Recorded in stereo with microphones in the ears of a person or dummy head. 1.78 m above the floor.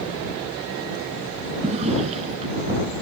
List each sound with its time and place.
1.6 s a drawer: 35° right (ahead or behind)